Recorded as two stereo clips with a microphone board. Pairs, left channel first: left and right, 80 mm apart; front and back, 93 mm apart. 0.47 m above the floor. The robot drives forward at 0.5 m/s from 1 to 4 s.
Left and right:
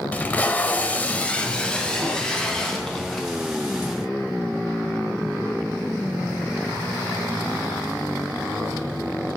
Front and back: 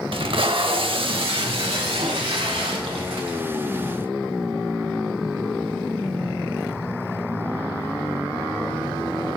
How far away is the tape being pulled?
About 0.6 m.